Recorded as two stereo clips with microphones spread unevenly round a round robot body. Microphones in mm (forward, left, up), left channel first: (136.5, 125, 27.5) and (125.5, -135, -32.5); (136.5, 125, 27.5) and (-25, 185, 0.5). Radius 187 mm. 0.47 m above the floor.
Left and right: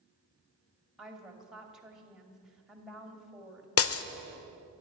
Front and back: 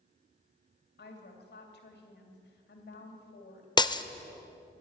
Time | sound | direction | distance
1.0 | a woman speaking | 10° right | 3 m
3.8 | breaking glass | 50° left | 0.8 m